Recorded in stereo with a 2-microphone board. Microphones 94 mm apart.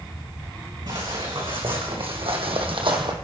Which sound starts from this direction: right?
Footsteps, at 0.9 s.